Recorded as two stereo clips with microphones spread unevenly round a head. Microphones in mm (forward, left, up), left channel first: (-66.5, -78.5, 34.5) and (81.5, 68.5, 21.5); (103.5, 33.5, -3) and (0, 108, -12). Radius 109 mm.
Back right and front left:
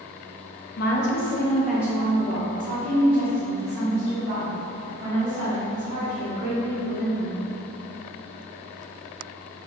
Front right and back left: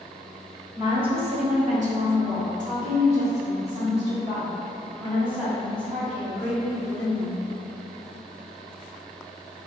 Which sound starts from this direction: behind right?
A woman speaking, at 0.8 s.